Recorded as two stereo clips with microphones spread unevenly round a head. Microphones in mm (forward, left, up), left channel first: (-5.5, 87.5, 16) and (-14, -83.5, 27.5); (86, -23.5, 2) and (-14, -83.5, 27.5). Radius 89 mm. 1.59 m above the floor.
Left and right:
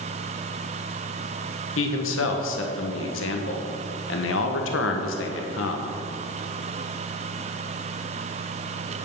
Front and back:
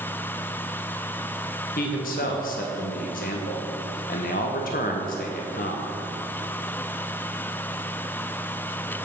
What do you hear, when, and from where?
1.8 s a man speaking: 70° left, 1.1 m